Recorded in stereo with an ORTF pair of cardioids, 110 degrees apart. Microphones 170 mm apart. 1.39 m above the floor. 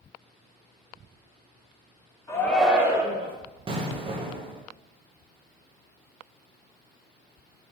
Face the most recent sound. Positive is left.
turn(degrees=-30)